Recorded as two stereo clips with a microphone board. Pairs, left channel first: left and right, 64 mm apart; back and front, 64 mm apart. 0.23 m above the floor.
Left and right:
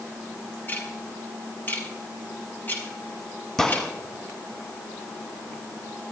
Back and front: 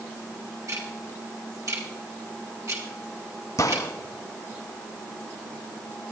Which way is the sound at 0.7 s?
30° left.